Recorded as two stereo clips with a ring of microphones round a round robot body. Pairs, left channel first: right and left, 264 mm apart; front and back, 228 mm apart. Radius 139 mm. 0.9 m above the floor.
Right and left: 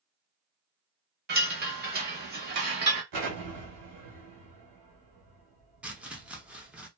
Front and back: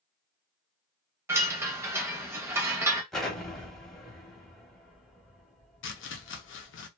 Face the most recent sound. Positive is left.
turn(degrees=5)